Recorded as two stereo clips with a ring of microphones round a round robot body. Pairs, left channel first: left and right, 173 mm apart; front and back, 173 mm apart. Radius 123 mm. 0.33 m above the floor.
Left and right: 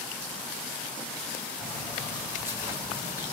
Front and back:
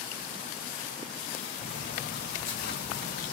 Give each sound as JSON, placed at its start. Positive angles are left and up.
{"t": 1.6, "sound": "footsteps", "azimuth_deg": -5, "distance_m": 7.5}